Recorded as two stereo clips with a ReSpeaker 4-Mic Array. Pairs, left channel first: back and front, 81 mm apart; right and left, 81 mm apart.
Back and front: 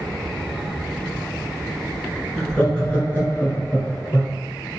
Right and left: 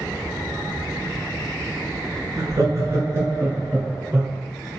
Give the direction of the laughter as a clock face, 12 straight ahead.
9 o'clock.